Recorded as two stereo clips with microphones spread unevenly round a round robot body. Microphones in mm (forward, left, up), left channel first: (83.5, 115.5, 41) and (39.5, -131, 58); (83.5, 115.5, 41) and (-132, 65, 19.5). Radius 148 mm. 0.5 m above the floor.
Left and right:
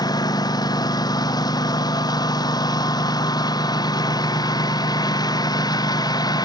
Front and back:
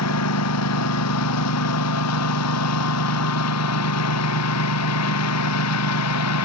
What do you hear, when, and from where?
0.0 s a lawn mower: 5° left